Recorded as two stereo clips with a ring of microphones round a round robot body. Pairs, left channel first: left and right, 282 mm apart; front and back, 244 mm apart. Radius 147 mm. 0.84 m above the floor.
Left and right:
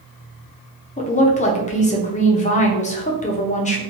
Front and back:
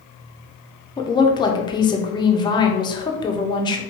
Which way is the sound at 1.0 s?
55° left.